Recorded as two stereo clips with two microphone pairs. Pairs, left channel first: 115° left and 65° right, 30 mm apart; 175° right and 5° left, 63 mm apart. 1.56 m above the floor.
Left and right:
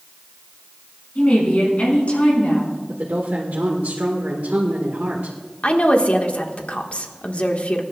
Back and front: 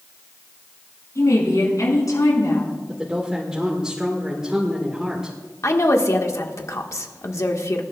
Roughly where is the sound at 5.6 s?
Behind left.